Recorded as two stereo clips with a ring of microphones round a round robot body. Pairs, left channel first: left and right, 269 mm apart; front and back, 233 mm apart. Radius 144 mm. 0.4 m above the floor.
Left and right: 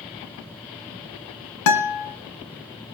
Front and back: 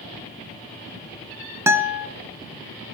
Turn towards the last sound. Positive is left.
turn(degrees=100)